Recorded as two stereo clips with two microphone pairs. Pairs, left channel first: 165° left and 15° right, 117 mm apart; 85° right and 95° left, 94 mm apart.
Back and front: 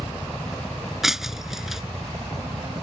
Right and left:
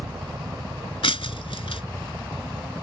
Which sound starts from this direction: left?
A helicopter, at 0.0 s.